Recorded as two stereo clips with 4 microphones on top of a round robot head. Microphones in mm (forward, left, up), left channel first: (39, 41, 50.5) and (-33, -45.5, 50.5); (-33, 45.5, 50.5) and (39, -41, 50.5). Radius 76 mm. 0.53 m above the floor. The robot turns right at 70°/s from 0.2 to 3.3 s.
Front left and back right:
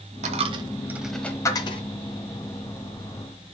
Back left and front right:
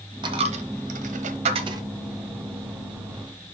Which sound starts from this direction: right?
A dropped coin, at 0.2 s.